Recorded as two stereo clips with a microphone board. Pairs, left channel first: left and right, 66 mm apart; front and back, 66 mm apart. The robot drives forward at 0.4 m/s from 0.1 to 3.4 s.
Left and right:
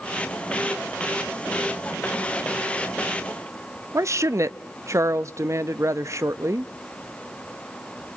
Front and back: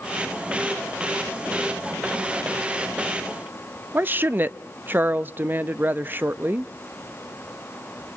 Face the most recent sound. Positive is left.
turn(degrees=-120)